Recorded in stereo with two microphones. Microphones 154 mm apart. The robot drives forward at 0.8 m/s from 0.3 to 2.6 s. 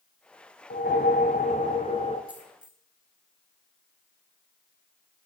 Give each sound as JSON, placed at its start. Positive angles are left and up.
{"t": 0.7, "sound": "a whoosh", "side_deg": 80, "distance_m": 0.9}
{"t": 2.3, "sound": "a dropped coin", "side_deg": -10, "distance_m": 2.0}